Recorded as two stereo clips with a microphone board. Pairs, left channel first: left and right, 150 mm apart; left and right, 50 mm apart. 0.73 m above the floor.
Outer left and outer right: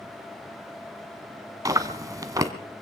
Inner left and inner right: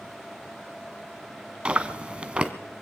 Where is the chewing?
20° right (ahead or behind), 1.0 m.